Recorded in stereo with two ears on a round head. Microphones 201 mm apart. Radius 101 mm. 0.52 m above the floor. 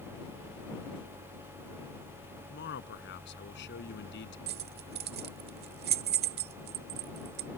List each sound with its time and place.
2.5 s a man speaking: 55° left (ahead or behind)
4.5 s keys jangling: 45° right (ahead or behind)